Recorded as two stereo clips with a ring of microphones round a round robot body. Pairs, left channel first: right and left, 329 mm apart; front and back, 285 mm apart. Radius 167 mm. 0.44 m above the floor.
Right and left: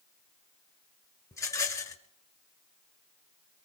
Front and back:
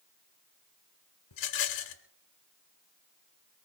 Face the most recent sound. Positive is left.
turn(degrees=-10)